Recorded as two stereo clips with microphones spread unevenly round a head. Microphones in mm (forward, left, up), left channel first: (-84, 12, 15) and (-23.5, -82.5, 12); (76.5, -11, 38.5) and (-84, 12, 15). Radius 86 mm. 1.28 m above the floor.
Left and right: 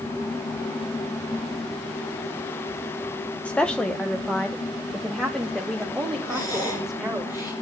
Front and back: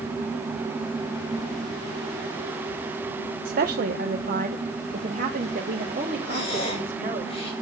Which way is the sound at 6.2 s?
50° left.